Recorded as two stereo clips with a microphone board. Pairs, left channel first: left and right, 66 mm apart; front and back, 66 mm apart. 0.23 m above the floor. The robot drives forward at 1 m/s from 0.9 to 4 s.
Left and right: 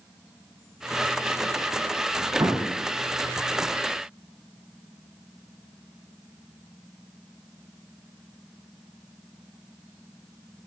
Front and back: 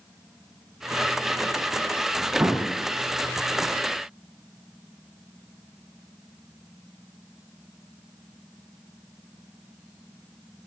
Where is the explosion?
120° right, 8 m.